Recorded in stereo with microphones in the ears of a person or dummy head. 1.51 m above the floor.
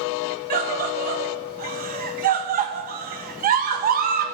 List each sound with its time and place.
0.5 s a scream: 40° right (ahead or behind), 1.2 m